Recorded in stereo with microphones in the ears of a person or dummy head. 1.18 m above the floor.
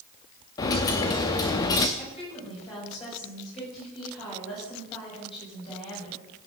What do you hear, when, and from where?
0.6 s a dropped coin: 20° left (ahead or behind), 0.7 m
2.0 s a woman speaking: 30° left (ahead or behind), 7 m